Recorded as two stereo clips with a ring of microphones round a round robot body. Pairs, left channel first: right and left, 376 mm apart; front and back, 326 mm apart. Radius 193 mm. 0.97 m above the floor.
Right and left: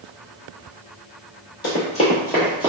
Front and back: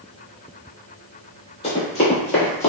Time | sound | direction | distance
1.6 | running footsteps | 60° right | 1.0 m